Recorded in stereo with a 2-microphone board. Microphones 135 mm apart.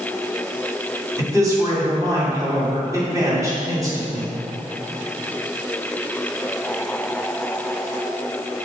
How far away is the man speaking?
About 2.5 m.